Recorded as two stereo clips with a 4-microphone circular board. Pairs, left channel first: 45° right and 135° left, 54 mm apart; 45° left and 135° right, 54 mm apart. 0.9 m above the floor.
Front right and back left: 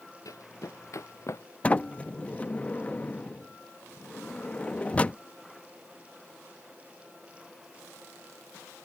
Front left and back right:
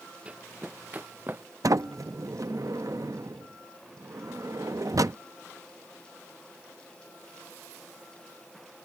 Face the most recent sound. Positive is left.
turn(degrees=-115)